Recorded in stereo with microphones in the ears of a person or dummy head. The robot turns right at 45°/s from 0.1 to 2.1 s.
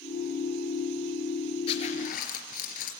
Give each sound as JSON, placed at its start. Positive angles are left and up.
{"t": 1.7, "sound": "a zipper", "side_deg": 30, "distance_m": 3.5}